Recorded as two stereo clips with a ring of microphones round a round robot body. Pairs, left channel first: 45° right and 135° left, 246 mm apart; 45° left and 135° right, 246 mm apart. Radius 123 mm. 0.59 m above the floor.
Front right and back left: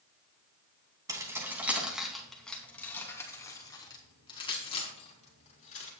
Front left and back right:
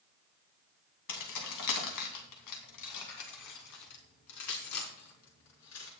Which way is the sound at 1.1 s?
60° left.